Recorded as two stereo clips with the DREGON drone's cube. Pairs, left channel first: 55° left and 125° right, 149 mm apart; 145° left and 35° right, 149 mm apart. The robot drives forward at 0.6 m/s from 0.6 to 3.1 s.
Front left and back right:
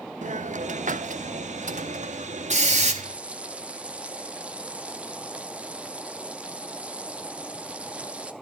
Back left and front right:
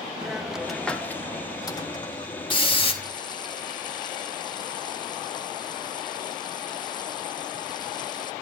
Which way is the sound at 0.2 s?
120° right.